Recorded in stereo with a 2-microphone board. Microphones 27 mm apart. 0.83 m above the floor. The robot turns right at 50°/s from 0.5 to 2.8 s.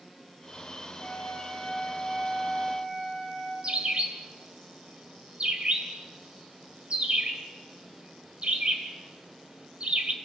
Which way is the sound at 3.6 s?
50° right (ahead or behind).